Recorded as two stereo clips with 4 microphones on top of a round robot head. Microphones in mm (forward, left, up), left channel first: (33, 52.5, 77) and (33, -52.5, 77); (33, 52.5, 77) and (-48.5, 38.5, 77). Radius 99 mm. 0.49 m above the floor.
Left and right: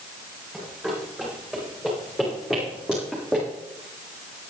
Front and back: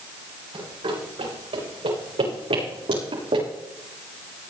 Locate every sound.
0.5 s running footsteps: 175° right, 8 m